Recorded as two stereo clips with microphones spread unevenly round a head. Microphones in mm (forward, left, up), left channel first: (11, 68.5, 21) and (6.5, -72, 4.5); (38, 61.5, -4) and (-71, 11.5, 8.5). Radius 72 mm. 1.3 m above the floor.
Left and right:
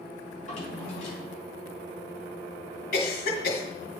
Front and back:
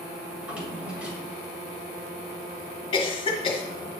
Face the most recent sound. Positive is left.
turn(degrees=65)